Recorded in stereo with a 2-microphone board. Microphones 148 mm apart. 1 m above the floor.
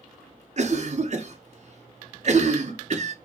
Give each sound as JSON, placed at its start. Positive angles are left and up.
{"t": 0.6, "sound": "a cough", "side_deg": -50, "distance_m": 0.6}